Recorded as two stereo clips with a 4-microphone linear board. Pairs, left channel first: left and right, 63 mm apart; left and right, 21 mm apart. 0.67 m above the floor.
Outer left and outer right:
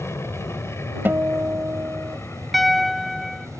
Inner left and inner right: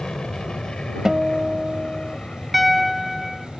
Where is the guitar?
35° right (ahead or behind).